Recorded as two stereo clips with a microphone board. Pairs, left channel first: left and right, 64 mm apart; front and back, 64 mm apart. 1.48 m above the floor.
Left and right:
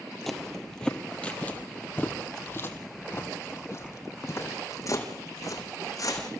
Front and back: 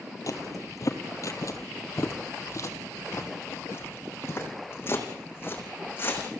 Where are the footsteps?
5° left, 2.5 m; by 6.3 s 55° left, 5 m.